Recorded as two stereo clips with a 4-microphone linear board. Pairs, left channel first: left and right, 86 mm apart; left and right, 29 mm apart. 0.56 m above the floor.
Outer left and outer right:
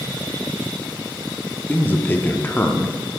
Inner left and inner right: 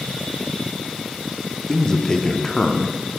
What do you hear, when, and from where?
1.7 s a man speaking: 20° left (ahead or behind), 0.7 m